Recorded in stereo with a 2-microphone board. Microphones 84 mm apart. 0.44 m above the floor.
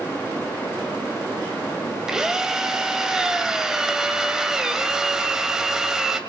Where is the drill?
5° right (ahead or behind), 2 m.